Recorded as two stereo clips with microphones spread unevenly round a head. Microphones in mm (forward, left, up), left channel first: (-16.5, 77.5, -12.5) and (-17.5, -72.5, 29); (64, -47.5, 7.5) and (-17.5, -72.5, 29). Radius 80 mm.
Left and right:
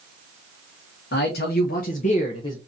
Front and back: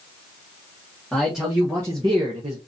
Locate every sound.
1.1 s a man speaking: 105° left, 1.3 m; by 2.6 s 160° left, 0.8 m